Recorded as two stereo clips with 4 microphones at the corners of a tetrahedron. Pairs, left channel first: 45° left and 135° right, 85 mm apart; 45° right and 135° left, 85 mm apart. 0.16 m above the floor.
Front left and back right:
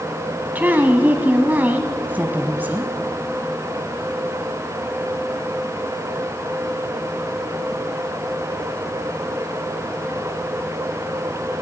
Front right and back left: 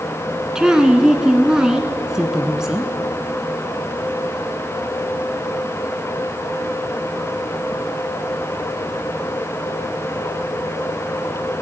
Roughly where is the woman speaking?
Behind right.